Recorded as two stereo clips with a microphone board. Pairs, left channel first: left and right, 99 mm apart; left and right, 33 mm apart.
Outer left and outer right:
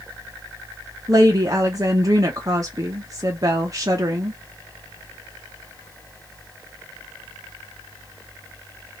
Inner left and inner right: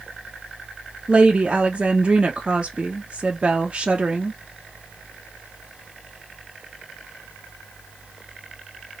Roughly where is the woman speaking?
Right.